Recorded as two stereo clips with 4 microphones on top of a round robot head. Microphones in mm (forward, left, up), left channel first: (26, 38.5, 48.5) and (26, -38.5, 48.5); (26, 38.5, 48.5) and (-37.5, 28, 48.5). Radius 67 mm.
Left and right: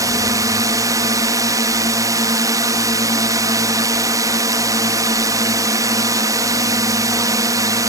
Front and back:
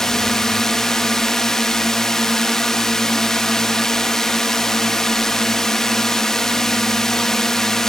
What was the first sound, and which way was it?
A drone, 70° right.